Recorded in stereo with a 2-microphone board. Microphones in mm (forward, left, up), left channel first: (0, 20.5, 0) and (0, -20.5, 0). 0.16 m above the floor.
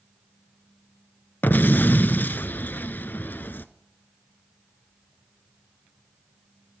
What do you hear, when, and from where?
1.4 s an explosion: 50° left (ahead or behind), 0.7 m